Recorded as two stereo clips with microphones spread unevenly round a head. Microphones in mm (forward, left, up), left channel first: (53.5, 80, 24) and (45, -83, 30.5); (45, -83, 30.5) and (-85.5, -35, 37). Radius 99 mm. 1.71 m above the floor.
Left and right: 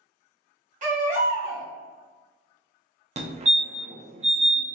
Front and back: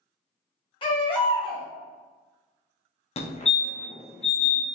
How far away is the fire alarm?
About 0.8 m.